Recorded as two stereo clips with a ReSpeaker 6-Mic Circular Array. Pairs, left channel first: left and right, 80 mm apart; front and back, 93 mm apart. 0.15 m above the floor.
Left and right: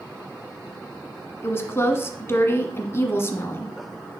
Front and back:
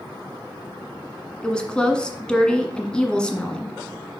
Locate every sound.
1.4 s a woman speaking: 70° left, 1.3 m